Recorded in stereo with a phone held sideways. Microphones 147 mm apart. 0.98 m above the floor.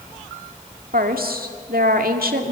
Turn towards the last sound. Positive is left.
turn(degrees=-80)